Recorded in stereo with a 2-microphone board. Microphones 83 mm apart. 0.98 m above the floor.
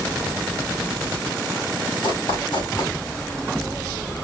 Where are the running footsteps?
75° left (ahead or behind), 5 m.